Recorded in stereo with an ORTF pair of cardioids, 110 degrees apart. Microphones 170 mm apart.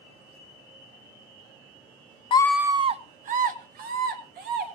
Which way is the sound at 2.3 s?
30° left.